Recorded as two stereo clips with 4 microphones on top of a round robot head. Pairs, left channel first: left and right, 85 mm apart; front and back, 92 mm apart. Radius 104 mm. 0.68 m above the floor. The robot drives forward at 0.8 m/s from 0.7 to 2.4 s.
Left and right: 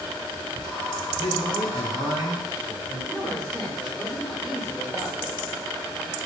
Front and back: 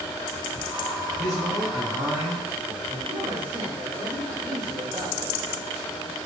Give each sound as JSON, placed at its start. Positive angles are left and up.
{"t": 1.2, "sound": "a man speaking", "azimuth_deg": -140, "distance_m": 4.0}
{"t": 3.1, "sound": "a woman speaking", "azimuth_deg": -175, "distance_m": 3.0}